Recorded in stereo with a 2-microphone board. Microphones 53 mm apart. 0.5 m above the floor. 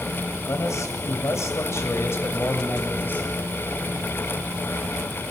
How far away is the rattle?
I don't hear a rattle.